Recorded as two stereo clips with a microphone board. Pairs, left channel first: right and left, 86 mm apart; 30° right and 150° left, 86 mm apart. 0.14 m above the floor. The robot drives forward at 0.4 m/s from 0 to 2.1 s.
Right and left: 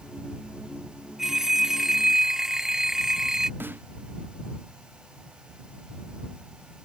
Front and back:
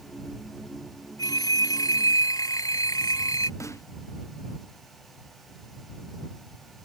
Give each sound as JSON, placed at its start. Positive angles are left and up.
{"t": 1.2, "sound": "a phone ringing", "azimuth_deg": 5}
{"t": 3.6, "sound": "a snare drum", "azimuth_deg": 25}